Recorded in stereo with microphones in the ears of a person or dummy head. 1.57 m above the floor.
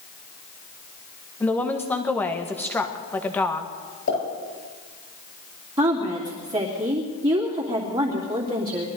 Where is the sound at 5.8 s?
15° right (ahead or behind), 2.5 m.